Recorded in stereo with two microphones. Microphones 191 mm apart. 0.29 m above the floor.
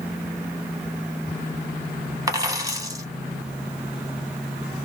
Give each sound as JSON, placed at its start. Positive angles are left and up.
{"t": 2.3, "sound": "a dropped coin", "side_deg": -20, "distance_m": 0.7}